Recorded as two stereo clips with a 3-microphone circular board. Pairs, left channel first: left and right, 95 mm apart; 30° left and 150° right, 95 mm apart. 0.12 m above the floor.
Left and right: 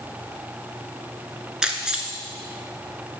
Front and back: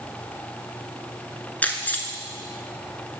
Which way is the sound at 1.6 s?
20° right.